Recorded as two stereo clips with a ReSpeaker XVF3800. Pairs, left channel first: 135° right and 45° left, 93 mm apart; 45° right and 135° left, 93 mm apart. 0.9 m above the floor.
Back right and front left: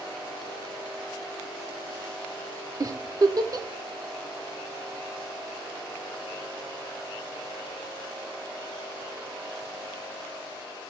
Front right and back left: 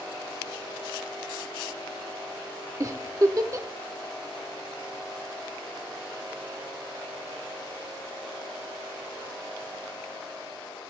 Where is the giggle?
90° left, 0.8 m.